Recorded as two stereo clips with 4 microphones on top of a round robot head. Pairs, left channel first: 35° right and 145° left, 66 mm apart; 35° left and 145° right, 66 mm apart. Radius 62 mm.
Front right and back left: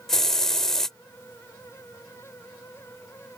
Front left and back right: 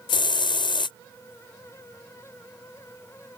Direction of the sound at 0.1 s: 45° left.